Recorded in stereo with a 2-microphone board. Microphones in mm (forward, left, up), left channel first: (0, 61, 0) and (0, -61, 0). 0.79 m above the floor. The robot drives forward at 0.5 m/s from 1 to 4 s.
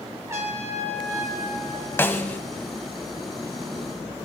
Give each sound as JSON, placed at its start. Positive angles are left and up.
{"t": 0.3, "sound": "a trumpet", "side_deg": -20, "distance_m": 3.0}
{"t": 2.0, "sound": "a snare drum", "side_deg": 20, "distance_m": 0.9}